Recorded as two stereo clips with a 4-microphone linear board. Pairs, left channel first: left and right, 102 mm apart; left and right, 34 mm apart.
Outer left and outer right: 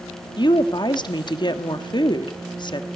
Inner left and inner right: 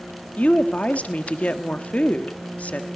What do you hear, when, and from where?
0.4 s a woman speaking: 45° left (ahead or behind), 1.4 m